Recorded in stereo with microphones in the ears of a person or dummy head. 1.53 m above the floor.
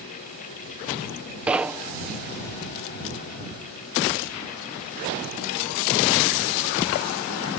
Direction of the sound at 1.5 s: 10° right (ahead or behind).